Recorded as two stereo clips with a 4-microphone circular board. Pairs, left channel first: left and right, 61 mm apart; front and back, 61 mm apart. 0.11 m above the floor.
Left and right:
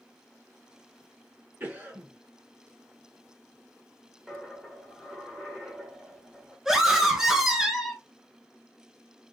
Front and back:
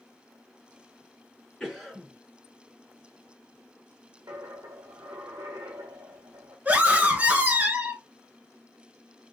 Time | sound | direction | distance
1.6 | a cough | 80° right | 2.0 m
4.3 | a dropped coin | 175° right | 1.4 m
6.7 | a scream | 165° right | 1.3 m